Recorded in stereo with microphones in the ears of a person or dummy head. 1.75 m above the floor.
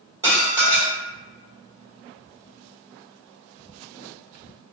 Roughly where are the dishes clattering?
Right.